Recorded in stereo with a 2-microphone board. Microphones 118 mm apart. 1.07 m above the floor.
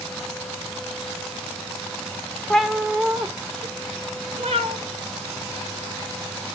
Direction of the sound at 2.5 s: 5° left (ahead or behind).